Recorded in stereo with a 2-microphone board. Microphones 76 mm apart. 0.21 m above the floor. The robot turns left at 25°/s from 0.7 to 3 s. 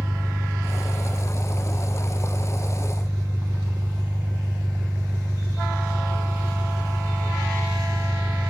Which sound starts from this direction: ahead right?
An engine running, at 0.0 s.